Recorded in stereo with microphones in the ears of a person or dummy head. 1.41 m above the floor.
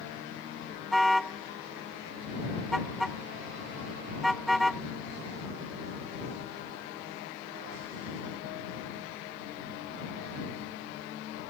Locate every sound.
0.9 s a car horn: 5° left (ahead or behind)